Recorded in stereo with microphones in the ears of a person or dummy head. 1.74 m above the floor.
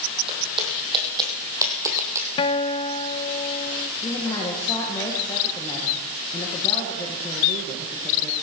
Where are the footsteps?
35° right (ahead or behind), 3.5 m; by 2.3 s 15° right (ahead or behind), 3 m.